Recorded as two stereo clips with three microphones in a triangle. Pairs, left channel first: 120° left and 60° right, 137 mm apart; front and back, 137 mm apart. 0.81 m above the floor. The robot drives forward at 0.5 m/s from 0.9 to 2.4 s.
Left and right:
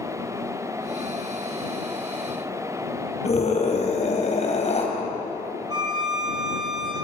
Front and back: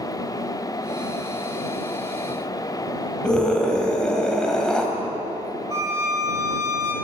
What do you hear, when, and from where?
3.2 s a scream: 85° left, 4 m
5.7 s a violin: 115° right, 2.5 m